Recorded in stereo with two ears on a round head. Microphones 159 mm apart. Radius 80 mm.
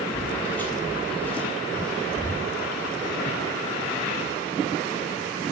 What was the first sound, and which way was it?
Footsteps, 10° left (ahead or behind).